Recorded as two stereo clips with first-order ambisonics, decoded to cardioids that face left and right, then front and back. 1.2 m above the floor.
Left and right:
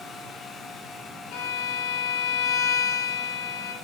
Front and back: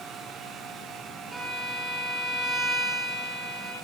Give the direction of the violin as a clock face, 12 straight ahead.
9 o'clock.